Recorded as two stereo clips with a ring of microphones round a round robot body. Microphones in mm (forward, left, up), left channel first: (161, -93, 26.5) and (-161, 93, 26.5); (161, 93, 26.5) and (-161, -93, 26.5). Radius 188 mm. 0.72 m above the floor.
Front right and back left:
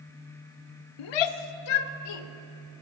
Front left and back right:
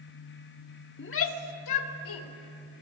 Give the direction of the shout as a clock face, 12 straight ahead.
1 o'clock.